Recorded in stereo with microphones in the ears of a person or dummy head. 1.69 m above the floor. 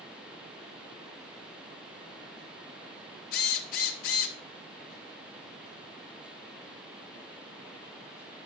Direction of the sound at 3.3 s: 50° left (ahead or behind).